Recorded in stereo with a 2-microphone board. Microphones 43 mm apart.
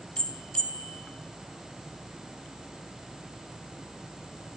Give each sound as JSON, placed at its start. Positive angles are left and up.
{"t": 0.2, "sound": "a bell", "side_deg": 20, "distance_m": 1.5}